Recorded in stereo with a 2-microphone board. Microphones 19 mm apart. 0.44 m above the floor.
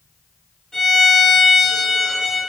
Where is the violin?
20° left (ahead or behind), 1.5 m.